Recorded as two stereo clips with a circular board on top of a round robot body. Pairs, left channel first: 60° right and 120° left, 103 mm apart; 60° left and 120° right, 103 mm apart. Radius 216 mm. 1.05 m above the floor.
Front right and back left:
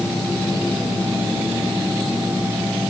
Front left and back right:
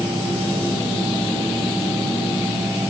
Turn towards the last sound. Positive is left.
No sound to turn to.